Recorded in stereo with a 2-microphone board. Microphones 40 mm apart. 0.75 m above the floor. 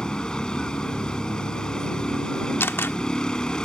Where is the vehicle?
20° left (ahead or behind).